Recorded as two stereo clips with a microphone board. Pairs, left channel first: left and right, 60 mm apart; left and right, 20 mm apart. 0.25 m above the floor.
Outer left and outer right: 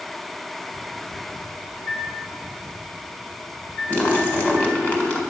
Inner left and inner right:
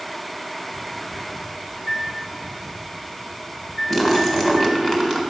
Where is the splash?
25° left (ahead or behind), 1.6 m.